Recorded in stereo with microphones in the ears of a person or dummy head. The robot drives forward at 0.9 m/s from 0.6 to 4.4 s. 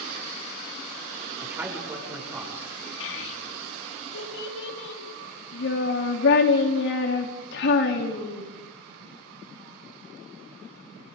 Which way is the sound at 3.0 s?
70° left (ahead or behind).